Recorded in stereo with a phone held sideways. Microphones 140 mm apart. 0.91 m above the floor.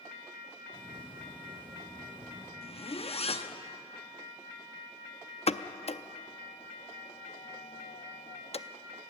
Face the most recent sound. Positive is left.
turn(degrees=45)  # may be behind; listen again after turning